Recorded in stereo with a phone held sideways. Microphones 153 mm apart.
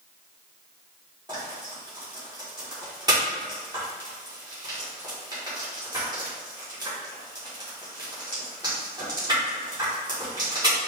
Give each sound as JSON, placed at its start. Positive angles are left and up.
{"t": 1.3, "sound": "frying", "side_deg": -25, "distance_m": 2.0}